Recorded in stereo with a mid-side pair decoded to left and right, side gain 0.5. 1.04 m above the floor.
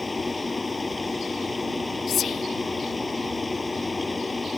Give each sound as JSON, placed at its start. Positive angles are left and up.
{"t": 0.0, "sound": "a machine running", "azimuth_deg": 20}
{"t": 2.1, "sound": "whispering", "azimuth_deg": 55}